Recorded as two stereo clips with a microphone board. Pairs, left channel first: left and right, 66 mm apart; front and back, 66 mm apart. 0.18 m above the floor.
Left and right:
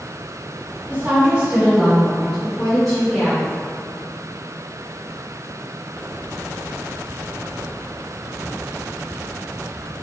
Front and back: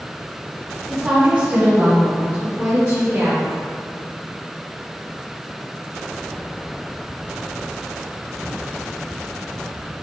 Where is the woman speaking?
110° right, 1.4 m; by 3.5 s 165° left, 2 m.